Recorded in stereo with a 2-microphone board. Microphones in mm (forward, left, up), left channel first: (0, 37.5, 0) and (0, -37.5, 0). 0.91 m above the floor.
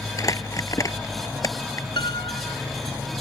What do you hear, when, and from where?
0.2 s crumpling: 45° left (ahead or behind)
2.0 s a piano: 85° left